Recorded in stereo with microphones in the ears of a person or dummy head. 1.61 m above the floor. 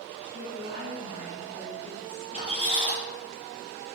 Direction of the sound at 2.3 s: 45° right (ahead or behind).